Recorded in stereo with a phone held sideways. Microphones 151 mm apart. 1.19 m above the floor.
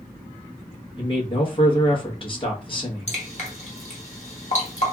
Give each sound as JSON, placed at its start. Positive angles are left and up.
{"t": 1.0, "sound": "a man speaking", "side_deg": 35, "distance_m": 1.0}
{"t": 3.1, "sound": "dripping", "side_deg": 50, "distance_m": 1.1}